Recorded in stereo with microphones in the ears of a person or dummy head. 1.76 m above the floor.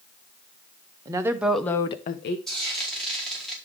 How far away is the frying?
About 4 m.